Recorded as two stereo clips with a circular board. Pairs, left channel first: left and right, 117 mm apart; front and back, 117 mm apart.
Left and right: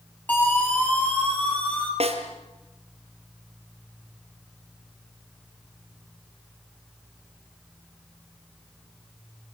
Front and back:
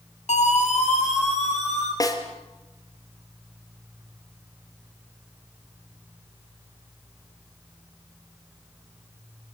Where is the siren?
15° left, 6 m.